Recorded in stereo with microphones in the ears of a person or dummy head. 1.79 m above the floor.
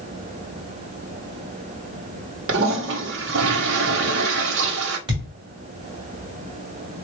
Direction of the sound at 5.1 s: 25° right (ahead or behind).